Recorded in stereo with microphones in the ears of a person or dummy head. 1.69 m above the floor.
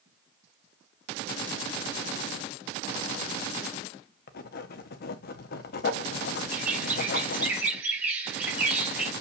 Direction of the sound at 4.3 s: 60° left (ahead or behind).